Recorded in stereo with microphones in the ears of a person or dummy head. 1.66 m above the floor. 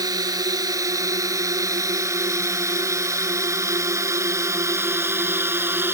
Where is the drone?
20° right (ahead or behind); by 6.0 s 10° right (ahead or behind).